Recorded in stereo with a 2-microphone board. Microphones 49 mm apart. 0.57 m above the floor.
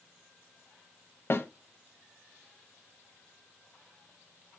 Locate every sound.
1.3 s a snare drum: 55° left (ahead or behind), 0.6 m